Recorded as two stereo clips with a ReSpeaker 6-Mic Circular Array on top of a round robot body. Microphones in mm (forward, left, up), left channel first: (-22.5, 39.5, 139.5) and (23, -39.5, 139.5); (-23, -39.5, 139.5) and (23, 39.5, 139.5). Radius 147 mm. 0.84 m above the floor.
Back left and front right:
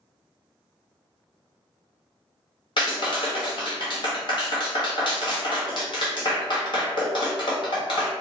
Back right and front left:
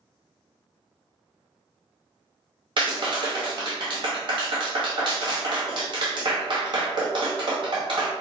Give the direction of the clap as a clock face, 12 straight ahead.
9 o'clock.